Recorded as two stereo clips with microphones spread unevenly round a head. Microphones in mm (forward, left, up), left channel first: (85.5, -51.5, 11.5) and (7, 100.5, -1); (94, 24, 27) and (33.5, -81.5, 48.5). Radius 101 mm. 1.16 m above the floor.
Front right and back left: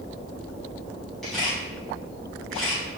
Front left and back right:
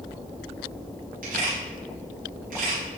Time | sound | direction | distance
1.2 | a camera shutter | 150° right | 4.5 m